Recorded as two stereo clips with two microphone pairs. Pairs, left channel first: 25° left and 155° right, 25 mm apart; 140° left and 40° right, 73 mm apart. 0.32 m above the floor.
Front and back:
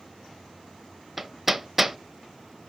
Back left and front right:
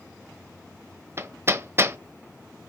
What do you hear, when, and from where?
1.2 s hammering: 75° right, 0.5 m